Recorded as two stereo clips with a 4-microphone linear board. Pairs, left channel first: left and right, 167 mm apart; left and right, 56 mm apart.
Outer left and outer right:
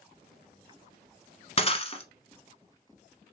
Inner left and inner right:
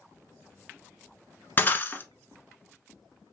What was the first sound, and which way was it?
Breaking glass, 35° left (ahead or behind).